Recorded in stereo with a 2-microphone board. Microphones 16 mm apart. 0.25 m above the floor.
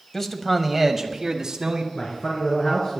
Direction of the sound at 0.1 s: 25° left (ahead or behind).